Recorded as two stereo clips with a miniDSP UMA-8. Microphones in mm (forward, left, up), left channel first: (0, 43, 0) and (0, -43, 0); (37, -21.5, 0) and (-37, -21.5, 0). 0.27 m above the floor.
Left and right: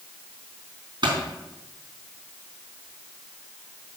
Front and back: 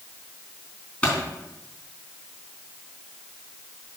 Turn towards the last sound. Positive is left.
turn(degrees=-70)